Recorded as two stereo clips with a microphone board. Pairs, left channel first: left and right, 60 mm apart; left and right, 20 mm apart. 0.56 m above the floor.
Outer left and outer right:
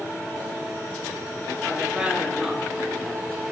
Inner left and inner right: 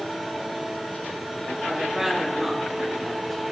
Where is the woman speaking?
25° right (ahead or behind), 4.5 m; by 3.4 s 10° left (ahead or behind), 4.5 m.